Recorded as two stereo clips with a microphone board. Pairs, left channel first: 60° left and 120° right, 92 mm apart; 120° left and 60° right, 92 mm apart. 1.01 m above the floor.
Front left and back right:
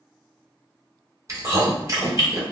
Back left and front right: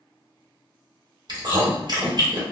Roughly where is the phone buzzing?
I don't hear a phone buzzing.